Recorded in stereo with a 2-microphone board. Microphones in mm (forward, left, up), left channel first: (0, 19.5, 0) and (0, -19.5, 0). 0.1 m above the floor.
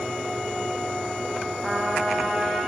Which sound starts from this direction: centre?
A trumpet, at 1.6 s.